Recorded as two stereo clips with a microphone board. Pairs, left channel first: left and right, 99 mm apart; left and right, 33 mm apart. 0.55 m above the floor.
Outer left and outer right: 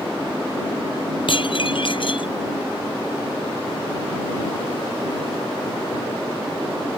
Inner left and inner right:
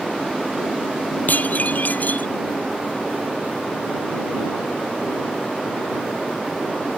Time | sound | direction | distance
1.3 | dishes clattering | 55° left (ahead or behind) | ?